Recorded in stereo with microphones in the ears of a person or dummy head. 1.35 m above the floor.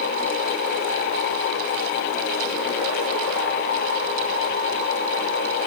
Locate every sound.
Only background noise.